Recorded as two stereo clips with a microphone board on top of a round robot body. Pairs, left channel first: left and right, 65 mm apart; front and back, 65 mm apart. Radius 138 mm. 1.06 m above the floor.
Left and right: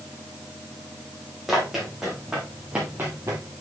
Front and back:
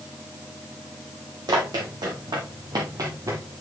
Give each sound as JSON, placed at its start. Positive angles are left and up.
{"t": 1.5, "sound": "running footsteps", "azimuth_deg": -175, "distance_m": 3.5}